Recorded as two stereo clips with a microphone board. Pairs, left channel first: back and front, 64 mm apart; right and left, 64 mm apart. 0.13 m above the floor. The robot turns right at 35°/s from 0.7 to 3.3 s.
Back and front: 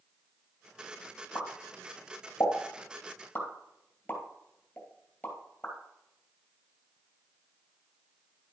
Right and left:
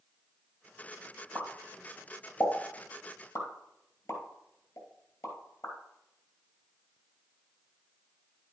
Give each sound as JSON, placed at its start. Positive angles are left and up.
{"t": 1.4, "sound": "a pop", "azimuth_deg": 175, "distance_m": 2.5}